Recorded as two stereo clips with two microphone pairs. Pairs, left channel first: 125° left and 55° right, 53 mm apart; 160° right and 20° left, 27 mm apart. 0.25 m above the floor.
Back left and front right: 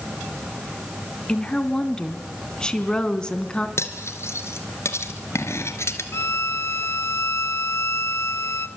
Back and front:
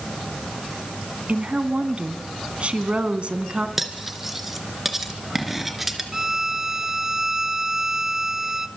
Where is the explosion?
No explosion in this recording.